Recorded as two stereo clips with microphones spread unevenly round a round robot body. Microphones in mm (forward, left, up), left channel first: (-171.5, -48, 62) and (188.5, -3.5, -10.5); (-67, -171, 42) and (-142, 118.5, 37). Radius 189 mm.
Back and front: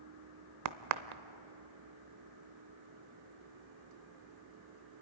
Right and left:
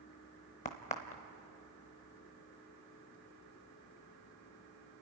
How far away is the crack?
About 0.6 m.